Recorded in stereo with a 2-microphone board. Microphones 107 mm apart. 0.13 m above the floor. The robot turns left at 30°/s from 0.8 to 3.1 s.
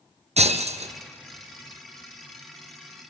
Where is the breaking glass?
85° right, 1.0 m; by 0.9 s 80° right, 1.0 m.